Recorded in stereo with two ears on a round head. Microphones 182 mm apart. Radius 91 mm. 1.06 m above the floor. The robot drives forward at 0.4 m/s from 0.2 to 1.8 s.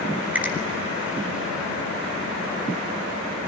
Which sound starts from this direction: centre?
A finger snap, at 0.3 s.